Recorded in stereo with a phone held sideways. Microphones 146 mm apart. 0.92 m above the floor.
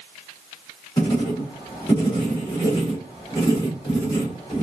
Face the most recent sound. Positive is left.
turn(degrees=30)  # may be behind; listen again after turning